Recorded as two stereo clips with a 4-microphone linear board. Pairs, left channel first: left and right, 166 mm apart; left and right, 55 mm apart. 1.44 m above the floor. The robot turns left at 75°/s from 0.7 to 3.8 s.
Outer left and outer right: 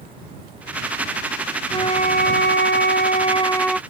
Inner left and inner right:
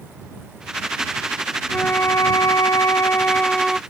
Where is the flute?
155° left; by 3.8 s straight ahead.